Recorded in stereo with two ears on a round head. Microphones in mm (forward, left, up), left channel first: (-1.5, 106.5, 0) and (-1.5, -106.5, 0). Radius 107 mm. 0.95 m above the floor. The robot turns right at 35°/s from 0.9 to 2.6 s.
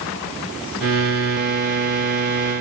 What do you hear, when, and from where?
Only background noise.